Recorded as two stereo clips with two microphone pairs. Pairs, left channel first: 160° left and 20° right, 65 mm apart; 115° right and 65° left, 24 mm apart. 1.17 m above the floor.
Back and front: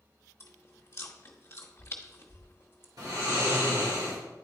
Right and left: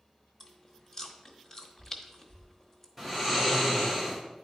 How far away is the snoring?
About 3.5 m.